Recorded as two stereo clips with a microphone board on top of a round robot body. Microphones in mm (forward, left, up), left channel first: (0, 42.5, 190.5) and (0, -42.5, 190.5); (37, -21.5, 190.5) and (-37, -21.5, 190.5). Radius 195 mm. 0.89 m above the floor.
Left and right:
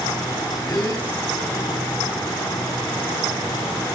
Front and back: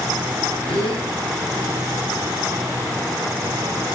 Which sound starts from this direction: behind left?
A gasp, at 0.7 s.